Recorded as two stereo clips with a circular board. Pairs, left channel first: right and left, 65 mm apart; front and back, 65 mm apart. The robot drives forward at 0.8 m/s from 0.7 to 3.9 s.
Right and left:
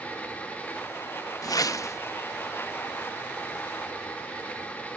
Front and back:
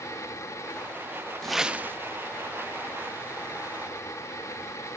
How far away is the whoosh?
About 0.5 m.